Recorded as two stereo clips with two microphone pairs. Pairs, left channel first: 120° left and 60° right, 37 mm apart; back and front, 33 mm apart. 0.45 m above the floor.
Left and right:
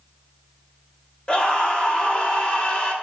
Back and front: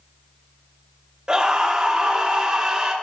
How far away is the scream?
About 2 m.